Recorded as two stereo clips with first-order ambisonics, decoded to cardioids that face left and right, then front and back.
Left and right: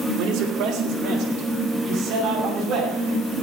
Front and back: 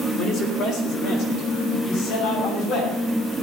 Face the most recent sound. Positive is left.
turn(degrees=-35)